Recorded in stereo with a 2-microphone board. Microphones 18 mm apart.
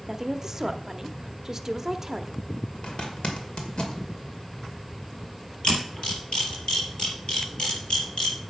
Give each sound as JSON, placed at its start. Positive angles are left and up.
{"t": 0.1, "sound": "a woman speaking", "side_deg": -30, "distance_m": 0.8}
{"t": 2.8, "sound": "a zipper", "side_deg": 60, "distance_m": 2.0}
{"t": 5.6, "sound": "a camera shutter", "side_deg": 60, "distance_m": 5.0}